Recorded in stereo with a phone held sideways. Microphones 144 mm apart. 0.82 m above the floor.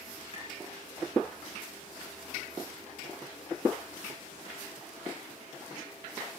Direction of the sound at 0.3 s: 40° left (ahead or behind).